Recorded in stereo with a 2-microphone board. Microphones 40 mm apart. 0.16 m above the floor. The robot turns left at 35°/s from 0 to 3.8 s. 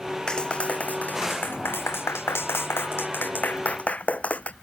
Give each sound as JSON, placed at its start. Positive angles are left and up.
{"t": 0.3, "sound": "a clap", "azimuth_deg": 160}